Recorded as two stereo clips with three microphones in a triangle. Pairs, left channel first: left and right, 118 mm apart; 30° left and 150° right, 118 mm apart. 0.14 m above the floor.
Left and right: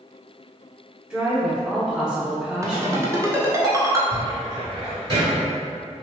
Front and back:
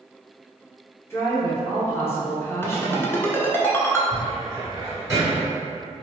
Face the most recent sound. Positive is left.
turn(degrees=-100)